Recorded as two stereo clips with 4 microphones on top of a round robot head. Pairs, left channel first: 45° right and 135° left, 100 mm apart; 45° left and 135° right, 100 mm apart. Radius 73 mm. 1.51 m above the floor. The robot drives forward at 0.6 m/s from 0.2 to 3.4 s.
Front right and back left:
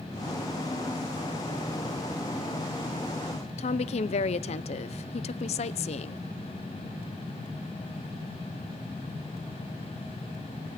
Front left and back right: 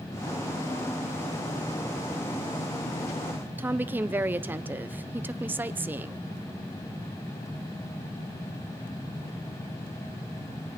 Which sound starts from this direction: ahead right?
A woman speaking, at 3.6 s.